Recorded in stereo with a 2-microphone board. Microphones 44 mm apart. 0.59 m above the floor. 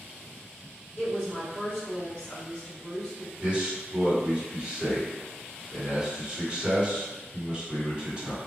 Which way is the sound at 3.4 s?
25° right (ahead or behind).